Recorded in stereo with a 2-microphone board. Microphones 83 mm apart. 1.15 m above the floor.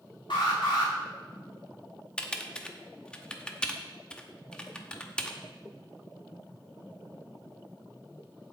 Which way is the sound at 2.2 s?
15° left (ahead or behind).